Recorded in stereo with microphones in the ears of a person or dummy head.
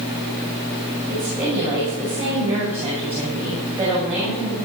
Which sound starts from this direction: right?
A woman speaking, at 1.1 s.